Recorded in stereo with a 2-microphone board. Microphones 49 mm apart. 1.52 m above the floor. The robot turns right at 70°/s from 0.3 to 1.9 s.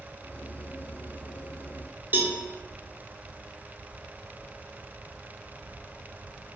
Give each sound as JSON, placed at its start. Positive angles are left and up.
{"t": 2.1, "sound": "a cowbell", "side_deg": -40, "distance_m": 0.6}